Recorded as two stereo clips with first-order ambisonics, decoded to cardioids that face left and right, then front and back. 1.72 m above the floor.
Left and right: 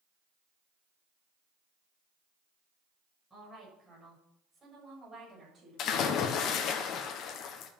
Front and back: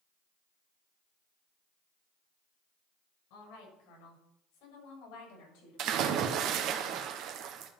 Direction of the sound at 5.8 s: 135° left.